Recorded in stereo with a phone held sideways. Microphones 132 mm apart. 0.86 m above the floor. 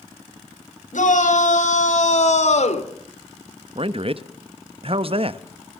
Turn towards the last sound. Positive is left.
turn(degrees=-45)  # may be behind; listen again after turning